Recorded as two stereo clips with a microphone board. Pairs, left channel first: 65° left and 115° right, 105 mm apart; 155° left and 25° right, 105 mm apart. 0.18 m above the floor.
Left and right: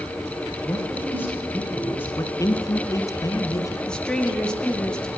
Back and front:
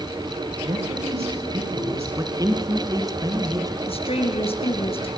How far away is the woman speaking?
About 3.5 m.